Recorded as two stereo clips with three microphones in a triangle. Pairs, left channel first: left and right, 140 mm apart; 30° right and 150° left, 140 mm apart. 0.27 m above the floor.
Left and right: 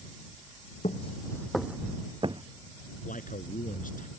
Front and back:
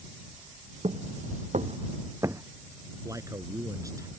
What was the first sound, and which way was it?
Footsteps, 115° left.